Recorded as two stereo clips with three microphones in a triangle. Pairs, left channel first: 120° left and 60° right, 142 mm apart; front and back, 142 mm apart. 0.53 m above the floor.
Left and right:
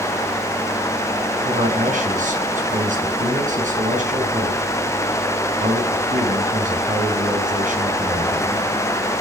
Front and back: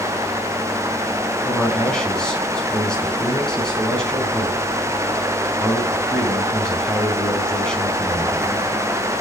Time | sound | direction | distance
1.4 | a man speaking | 85° right | 4 m